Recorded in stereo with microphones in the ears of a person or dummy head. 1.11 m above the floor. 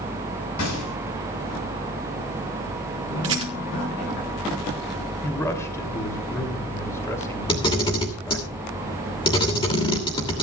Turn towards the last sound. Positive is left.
turn(degrees=20)  # may be behind; listen again after turning